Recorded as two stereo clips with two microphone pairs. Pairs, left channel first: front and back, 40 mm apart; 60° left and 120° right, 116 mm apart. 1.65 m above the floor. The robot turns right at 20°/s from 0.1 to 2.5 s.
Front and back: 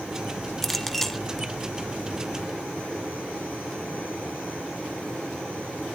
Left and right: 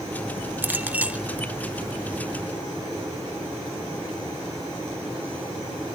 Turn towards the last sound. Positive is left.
turn(degrees=-40)